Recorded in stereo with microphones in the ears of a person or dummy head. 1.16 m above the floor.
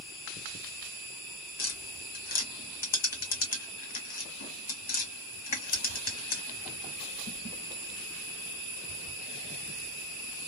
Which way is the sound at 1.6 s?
40° left (ahead or behind).